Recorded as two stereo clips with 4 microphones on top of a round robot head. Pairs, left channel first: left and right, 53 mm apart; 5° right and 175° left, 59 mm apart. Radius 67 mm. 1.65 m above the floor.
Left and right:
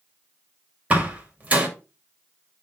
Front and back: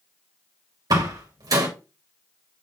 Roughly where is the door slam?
Behind right.